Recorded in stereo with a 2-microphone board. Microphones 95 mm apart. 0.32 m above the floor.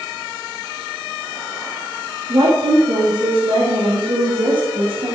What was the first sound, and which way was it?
A woman speaking, 65° right (ahead or behind).